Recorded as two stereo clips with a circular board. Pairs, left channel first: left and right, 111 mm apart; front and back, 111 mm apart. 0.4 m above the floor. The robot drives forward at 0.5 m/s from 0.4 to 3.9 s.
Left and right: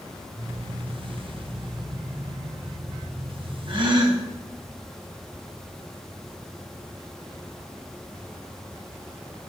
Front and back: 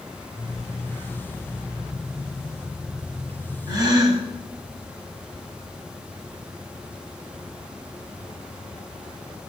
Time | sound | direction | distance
3.7 | a gasp | 130° right | 1.6 m